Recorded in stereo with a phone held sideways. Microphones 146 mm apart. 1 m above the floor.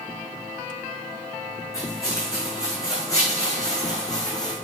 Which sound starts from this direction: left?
Footsteps, at 1.7 s.